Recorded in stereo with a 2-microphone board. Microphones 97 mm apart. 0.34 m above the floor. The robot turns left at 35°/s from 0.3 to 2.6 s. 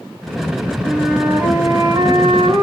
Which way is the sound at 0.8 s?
10° right.